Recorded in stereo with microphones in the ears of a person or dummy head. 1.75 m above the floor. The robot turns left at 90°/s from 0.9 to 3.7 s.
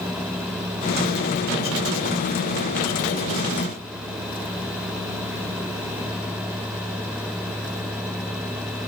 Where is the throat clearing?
I don't hear throat clearing.